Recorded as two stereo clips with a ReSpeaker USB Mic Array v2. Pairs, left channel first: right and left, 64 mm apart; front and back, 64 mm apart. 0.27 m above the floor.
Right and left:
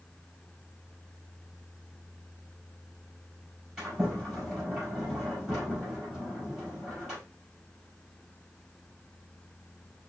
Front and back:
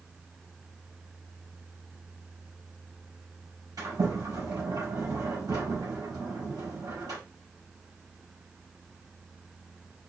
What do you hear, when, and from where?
3.8 s a sliding door: 165° left, 4.5 m